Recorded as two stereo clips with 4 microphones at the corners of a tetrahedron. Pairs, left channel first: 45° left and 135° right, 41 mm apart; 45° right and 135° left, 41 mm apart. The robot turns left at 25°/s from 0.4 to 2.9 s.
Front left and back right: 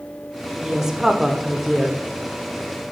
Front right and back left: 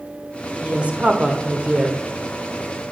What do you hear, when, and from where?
0.6 s a woman speaking: 160° left, 1.0 m; by 2.0 s 125° left, 1.0 m